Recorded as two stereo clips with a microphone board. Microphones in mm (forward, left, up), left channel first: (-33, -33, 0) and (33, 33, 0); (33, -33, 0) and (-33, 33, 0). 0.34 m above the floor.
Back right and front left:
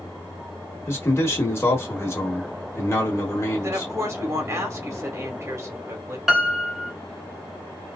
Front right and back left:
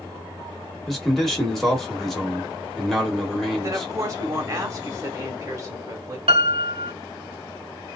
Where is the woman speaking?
90° left, 1.4 m.